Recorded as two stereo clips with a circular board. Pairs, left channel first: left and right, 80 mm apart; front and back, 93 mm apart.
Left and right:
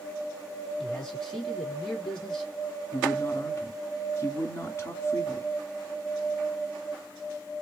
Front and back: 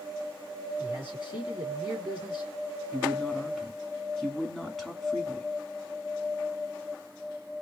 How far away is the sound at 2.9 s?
About 1.7 m.